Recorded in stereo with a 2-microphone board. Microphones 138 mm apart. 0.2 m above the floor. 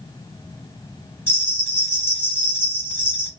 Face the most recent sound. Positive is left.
turn(degrees=15)  # may be behind; listen again after turning